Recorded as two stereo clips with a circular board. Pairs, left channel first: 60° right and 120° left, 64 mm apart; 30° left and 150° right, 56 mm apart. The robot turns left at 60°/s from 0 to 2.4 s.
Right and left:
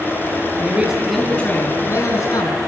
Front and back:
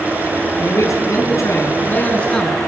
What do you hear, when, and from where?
0.6 s a man speaking: 60° left, 4.5 m; by 2.6 s 50° right, 4.5 m